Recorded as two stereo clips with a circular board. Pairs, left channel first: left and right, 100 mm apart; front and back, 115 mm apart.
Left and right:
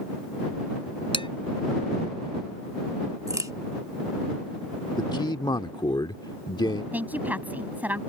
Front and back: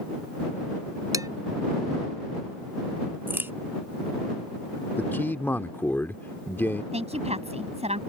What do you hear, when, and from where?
1.1 s dishes clattering: 120° left
3.3 s a crack: 120° right
5.0 s a man speaking: 65° left
6.9 s a woman speaking: 165° right